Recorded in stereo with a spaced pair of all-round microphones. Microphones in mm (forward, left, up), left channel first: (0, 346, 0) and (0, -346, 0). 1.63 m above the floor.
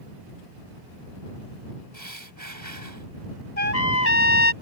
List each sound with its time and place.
1.9 s breathing: 25° right (ahead or behind)
3.6 s a trumpet: 60° left (ahead or behind)